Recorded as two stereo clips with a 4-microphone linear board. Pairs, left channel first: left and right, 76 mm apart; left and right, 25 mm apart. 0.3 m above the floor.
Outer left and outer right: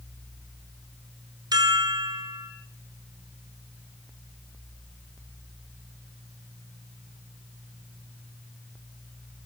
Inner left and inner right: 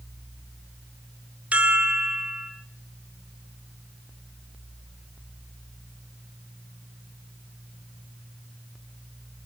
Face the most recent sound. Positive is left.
turn(degrees=-65)  # may be behind; listen again after turning